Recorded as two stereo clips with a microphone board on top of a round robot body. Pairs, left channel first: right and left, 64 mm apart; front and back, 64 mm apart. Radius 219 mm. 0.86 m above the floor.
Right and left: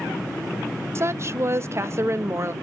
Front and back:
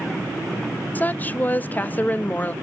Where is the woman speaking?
55° left, 0.8 m.